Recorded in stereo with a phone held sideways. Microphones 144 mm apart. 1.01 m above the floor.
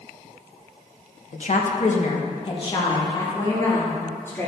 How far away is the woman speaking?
About 1.0 m.